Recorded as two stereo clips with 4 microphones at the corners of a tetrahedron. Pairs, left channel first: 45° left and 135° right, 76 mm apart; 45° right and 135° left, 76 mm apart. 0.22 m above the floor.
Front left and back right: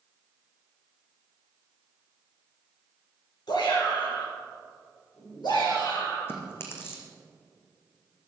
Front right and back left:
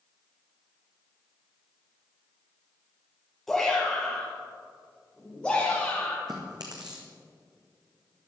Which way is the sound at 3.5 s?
40° left.